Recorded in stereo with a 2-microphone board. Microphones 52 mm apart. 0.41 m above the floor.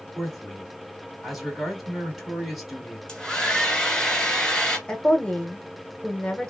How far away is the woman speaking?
About 1.2 m.